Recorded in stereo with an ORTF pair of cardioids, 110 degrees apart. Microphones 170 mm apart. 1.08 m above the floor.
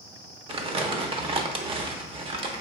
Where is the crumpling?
35° right, 0.6 m.